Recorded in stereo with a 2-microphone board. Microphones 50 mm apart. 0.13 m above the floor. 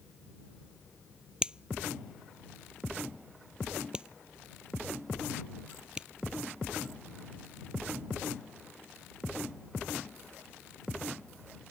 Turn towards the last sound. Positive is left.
turn(degrees=-20)  # may be behind; listen again after turning